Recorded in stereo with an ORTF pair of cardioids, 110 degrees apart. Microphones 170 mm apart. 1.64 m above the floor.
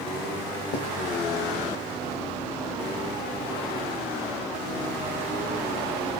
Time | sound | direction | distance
0.7 | writing | 65° left | 0.7 m